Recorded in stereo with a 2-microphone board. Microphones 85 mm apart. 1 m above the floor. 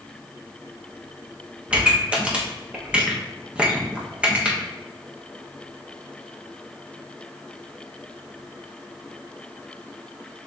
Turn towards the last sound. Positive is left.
turn(degrees=-15)  # may be behind; listen again after turning